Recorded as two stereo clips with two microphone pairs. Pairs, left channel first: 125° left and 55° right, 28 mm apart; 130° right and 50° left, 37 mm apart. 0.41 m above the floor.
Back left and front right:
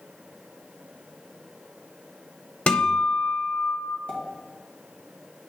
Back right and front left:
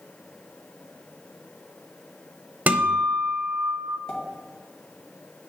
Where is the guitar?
85° left, 0.6 m.